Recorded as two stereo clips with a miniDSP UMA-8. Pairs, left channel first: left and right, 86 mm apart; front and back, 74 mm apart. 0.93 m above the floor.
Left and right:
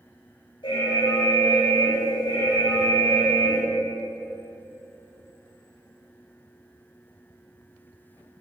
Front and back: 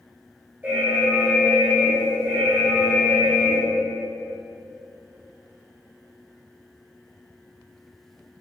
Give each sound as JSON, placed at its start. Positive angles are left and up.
{"t": 0.6, "sound": "an alarm", "azimuth_deg": 110, "distance_m": 5.0}